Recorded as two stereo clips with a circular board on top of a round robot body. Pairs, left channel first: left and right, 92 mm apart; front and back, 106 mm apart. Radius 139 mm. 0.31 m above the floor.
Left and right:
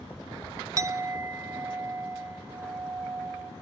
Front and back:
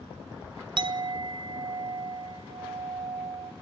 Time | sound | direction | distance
0.8 | a clink | 145° right | 1.0 m